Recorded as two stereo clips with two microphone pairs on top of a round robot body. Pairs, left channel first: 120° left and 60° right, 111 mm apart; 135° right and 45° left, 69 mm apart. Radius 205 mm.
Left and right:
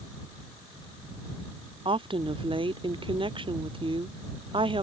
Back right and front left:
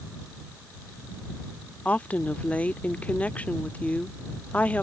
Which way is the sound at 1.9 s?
70° right.